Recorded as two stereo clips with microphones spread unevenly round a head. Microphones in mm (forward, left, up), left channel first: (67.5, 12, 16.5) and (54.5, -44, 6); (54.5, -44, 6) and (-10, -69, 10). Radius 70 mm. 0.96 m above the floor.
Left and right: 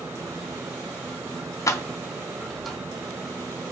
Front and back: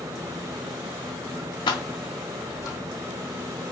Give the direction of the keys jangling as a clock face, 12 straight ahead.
10 o'clock.